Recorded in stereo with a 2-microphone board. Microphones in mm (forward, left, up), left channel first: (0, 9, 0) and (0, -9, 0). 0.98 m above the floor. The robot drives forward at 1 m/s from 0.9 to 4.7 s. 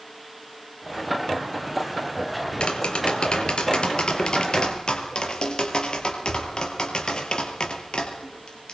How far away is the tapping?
About 4 m.